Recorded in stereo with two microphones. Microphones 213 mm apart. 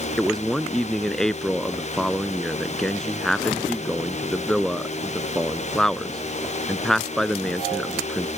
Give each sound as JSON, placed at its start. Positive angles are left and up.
{"t": 0.2, "sound": "a man speaking", "side_deg": 0}